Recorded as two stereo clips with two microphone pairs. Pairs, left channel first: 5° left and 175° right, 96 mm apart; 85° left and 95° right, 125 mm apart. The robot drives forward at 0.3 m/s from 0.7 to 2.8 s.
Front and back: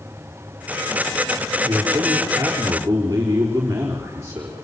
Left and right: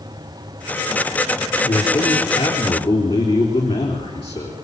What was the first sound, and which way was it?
A man speaking, 120° left.